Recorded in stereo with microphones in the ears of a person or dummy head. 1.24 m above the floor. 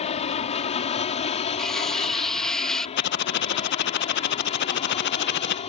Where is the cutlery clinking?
5° left (ahead or behind).